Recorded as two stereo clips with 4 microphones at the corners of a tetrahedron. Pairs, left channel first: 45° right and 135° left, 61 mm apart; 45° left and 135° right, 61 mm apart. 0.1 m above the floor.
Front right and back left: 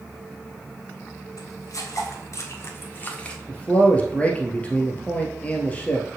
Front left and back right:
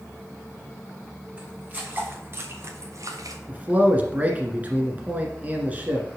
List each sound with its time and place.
1.4 s footsteps: 70° right, 3 m; by 3.4 s 120° right, 1.4 m
3.5 s a man speaking: 95° right, 1.6 m